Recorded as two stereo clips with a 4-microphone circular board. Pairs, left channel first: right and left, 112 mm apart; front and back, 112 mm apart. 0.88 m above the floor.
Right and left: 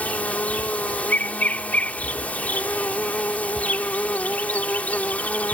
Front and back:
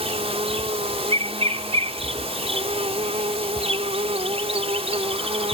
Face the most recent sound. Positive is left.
turn(degrees=-165)